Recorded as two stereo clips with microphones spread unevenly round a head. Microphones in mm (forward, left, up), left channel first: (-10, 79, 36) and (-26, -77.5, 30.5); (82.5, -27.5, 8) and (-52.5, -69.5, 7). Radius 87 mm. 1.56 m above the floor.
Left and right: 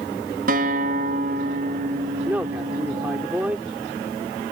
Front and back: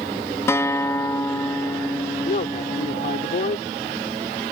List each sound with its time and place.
0.5 s a guitar: 55° right
2.2 s a man speaking: 15° right